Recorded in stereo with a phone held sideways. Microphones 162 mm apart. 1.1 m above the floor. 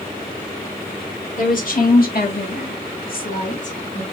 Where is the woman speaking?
55° left (ahead or behind), 2 m; by 4.0 s 45° left (ahead or behind), 2.0 m.